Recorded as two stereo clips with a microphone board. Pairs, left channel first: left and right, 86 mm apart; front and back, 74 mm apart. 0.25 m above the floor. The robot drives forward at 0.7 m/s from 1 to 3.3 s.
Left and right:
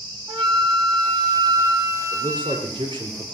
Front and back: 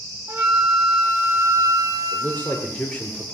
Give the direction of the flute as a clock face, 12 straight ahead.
4 o'clock.